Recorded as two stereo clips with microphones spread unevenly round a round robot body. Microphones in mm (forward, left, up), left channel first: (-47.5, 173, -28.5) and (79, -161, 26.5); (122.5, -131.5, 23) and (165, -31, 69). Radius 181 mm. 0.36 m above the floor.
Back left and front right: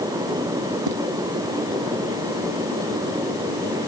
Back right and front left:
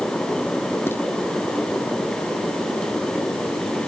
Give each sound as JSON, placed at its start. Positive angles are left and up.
{"t": 0.9, "sound": "footsteps", "azimuth_deg": -45}